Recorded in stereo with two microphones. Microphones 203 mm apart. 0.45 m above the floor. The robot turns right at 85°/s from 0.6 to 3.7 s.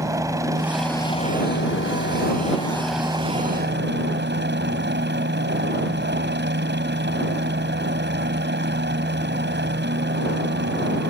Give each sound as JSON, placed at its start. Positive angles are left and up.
{"t": 0.0, "sound": "a helicopter", "azimuth_deg": -15}